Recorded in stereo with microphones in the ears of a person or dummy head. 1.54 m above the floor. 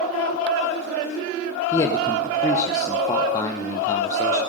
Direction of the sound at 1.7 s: 20° left (ahead or behind).